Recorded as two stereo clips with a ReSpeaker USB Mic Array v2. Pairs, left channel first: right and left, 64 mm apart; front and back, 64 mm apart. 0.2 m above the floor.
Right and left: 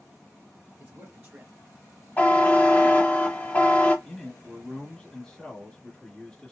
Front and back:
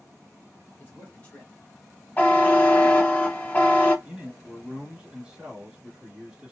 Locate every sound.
0.8 s a man speaking: 35° left, 1.3 m; by 3.0 s 165° left, 1.2 m
2.2 s a buzzer: 45° right, 0.8 m
4.0 s a man speaking: 140° right, 1.1 m